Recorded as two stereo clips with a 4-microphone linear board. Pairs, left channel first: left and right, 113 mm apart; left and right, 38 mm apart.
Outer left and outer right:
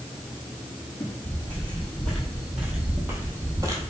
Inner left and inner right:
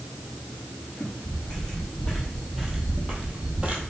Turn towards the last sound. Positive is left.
turn(degrees=-35)  # may be behind; listen again after turning